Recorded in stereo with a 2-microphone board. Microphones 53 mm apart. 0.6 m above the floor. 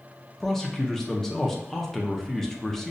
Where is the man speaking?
10° left (ahead or behind), 0.6 m.